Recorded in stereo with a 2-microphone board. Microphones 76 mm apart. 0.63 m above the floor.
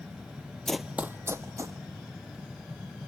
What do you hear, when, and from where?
0.7 s running footsteps: 10° left (ahead or behind), 0.6 m; by 1.8 s 35° right (ahead or behind), 1.6 m